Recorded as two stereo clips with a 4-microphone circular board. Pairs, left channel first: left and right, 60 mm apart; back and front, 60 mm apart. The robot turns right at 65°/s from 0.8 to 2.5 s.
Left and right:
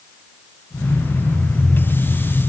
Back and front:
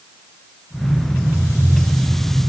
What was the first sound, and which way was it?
Only background noise.